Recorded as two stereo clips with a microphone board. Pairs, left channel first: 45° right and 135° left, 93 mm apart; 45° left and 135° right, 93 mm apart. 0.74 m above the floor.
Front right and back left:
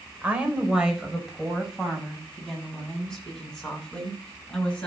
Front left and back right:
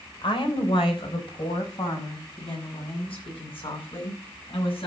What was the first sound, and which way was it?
A woman speaking, 60° left.